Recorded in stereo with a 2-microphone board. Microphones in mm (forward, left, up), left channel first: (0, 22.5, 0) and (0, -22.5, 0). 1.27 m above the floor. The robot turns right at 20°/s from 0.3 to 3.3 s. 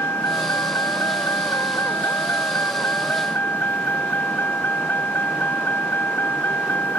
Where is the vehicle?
75° left; by 7.0 s 135° left.